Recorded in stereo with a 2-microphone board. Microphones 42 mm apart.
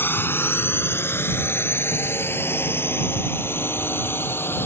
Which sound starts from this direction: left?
A drone, at 0.0 s.